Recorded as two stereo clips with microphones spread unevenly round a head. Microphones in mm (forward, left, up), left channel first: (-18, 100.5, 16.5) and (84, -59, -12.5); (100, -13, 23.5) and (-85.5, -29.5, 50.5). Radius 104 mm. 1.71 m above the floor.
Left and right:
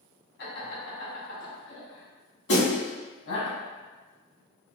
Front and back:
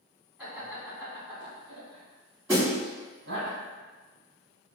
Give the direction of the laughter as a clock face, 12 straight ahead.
9 o'clock.